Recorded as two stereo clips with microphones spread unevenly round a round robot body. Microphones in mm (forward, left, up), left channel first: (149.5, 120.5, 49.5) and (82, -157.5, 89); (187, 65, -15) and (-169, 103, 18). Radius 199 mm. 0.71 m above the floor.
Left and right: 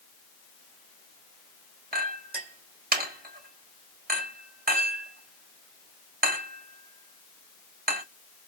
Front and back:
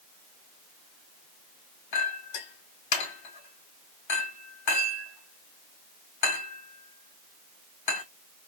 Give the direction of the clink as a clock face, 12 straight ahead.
1 o'clock.